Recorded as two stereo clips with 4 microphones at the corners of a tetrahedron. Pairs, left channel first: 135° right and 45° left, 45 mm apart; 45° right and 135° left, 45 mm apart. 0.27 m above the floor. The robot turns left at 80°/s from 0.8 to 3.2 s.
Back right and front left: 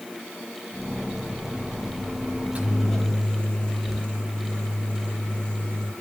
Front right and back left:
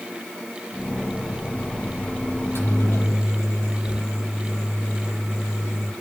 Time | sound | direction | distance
2.4 | a microwave | 5° right | 8 m